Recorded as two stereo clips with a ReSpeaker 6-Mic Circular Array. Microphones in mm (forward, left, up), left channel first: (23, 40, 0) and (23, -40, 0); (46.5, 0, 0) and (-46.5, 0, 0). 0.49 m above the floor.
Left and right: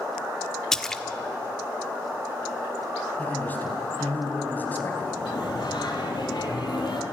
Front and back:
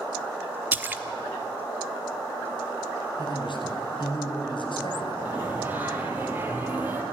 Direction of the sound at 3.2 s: 20° left.